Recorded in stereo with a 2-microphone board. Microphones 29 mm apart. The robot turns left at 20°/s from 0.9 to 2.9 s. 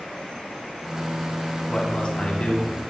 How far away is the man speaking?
About 2 m.